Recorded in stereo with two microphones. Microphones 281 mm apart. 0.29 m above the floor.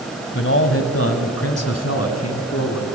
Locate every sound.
0.3 s a man speaking: 45° left (ahead or behind), 1.3 m; by 2.9 s 65° left (ahead or behind), 2.5 m